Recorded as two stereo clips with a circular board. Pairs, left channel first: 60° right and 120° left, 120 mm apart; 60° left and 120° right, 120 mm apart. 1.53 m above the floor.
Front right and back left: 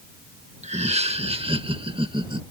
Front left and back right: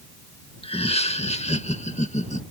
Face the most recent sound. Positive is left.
turn(degrees=70)